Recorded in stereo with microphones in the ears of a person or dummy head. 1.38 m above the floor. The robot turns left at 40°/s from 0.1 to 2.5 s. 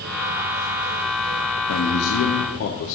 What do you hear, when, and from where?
1.7 s a man speaking: 100° left, 0.9 m; by 3.0 s 65° left, 0.9 m